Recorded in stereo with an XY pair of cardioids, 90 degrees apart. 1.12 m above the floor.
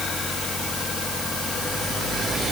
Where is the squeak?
I don't hear a squeak.